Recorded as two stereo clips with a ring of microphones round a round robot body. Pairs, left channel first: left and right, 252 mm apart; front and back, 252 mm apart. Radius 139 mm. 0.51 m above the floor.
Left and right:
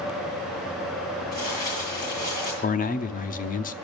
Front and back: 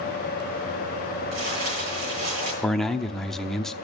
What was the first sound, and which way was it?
Crumpling, 165° left.